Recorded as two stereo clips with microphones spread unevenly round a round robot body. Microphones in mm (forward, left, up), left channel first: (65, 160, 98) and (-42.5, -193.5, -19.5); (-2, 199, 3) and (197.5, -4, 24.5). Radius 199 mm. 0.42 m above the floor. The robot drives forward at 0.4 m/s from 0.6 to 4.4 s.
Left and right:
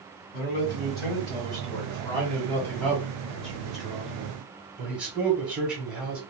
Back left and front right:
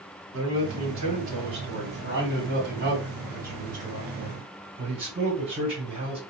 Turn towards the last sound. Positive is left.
turn(degrees=-95)